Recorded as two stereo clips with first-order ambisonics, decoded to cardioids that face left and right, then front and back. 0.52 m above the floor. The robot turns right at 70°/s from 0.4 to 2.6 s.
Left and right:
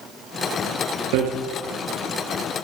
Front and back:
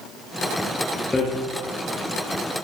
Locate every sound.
1.1 s hammering: 80° right, 2.5 m; by 1.3 s 70° right, 2.5 m